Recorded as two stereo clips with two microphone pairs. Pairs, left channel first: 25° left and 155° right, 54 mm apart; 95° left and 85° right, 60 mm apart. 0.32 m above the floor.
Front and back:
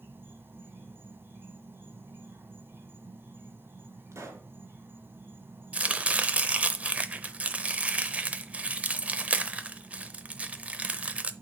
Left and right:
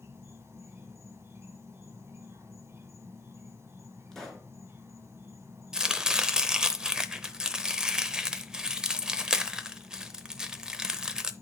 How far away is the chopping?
About 0.6 m.